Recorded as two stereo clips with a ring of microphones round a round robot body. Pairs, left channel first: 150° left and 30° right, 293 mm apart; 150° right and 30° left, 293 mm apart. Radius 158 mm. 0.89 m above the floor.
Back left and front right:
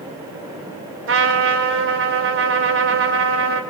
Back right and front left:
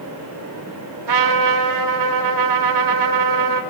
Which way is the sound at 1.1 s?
20° left.